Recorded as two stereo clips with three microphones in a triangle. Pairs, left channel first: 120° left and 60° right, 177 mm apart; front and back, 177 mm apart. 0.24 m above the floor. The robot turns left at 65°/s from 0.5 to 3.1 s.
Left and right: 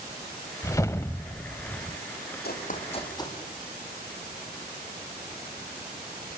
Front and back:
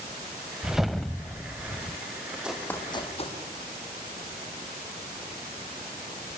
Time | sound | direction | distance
0.6 | a whoosh | 105° left | 0.5 m
2.4 | running footsteps | 95° left | 4 m